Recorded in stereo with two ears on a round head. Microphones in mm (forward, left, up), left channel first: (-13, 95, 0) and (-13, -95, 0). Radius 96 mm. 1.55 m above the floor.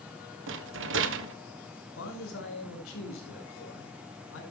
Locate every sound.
0.5 s a rattle: 70° right (ahead or behind), 1.2 m
2.0 s a man speaking: 80° left, 5.5 m